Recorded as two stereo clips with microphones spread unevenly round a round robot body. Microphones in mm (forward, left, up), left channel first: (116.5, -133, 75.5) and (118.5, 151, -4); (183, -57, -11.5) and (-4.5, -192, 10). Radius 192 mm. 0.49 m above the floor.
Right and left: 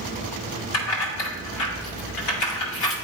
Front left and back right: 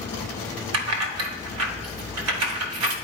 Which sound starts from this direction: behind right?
Keys jangling, at 0.7 s.